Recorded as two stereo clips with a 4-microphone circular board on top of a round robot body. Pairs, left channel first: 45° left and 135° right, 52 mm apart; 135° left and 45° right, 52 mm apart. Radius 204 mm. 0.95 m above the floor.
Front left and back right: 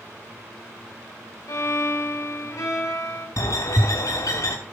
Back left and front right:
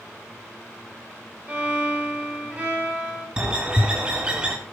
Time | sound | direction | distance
1.5 | a violin | 20° left | 4 m
3.4 | a bird | 30° left | 0.8 m